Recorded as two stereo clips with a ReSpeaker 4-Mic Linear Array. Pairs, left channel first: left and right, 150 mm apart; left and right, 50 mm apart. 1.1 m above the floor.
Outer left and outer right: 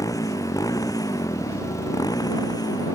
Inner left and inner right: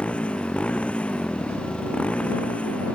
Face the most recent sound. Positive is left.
turn(degrees=25)  # may be behind; listen again after turning